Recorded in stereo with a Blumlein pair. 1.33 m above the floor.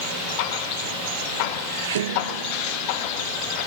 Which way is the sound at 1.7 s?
60° right.